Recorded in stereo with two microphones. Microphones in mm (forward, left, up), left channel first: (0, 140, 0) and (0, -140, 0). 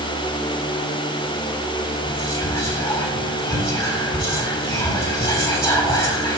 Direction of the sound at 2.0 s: 10° left (ahead or behind).